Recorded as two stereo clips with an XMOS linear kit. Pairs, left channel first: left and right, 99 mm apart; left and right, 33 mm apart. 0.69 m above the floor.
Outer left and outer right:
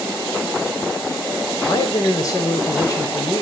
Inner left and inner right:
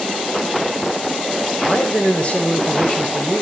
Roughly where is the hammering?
I don't hear hammering.